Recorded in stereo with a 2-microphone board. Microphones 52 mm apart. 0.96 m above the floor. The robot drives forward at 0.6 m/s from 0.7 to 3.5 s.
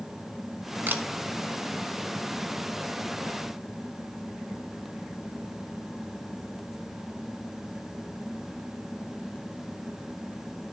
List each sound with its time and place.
0.9 s a camera shutter: 40° right (ahead or behind), 1.2 m